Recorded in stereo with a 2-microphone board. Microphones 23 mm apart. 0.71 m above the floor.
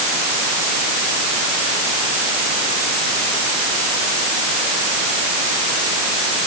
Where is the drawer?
I don't hear a drawer.